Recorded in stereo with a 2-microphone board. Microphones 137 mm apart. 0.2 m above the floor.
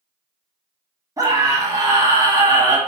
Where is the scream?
25° right (ahead or behind), 1.9 m.